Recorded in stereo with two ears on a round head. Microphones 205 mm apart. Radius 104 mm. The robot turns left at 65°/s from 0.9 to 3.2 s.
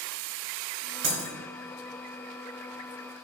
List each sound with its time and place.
1.0 s breaking glass: 50° right (ahead or behind), 0.7 m; by 1.3 s 40° right (ahead or behind), 0.7 m